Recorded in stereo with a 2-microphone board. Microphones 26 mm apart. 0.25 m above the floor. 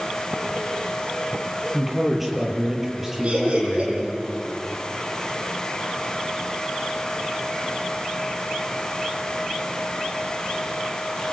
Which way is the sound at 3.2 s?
45° right (ahead or behind).